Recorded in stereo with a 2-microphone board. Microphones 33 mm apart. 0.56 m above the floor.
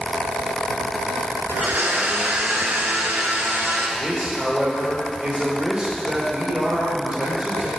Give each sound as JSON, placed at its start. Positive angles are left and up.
{"t": 1.5, "sound": "a blender", "side_deg": -75, "distance_m": 1.2}
{"t": 4.0, "sound": "a man speaking", "side_deg": -30, "distance_m": 2.0}